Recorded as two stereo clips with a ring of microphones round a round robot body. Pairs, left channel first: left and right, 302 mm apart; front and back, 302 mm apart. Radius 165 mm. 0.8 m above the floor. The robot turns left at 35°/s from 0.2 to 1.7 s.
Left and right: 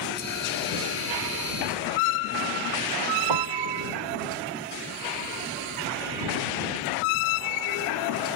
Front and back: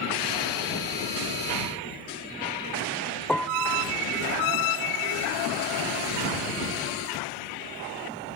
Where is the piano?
85° right.